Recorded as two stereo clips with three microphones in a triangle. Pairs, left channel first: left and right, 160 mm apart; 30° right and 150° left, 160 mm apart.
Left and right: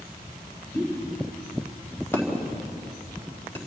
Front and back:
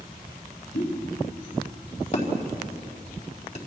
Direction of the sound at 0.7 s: 15° left.